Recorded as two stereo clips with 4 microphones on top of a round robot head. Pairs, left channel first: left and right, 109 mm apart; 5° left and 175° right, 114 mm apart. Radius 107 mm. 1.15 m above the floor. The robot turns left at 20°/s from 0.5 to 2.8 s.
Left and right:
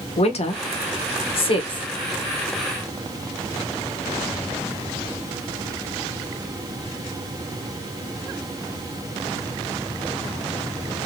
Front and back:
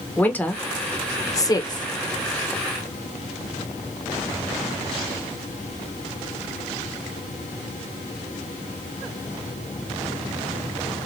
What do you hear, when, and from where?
0.2 s a woman speaking: 80° left, 1.4 m; by 1.9 s 50° left, 1.4 m